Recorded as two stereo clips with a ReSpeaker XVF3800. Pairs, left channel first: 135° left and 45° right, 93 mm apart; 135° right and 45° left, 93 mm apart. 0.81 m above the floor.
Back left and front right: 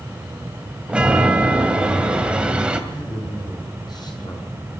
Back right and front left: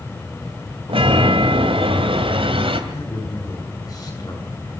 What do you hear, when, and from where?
0.9 s a chime: 35° left, 2 m
2.9 s a man speaking: 175° left, 8 m